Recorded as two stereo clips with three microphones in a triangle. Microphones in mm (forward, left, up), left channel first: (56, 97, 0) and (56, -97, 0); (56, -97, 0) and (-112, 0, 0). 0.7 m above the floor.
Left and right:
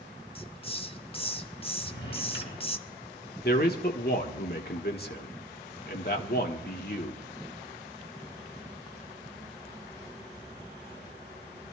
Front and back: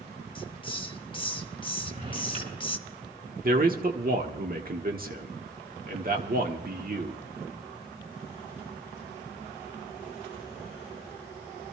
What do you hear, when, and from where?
0.3 s a hiss: 30° left, 0.6 m
1.8 s a drawer: 110° left, 5.5 m
3.4 s a man speaking: 115° left, 1.2 m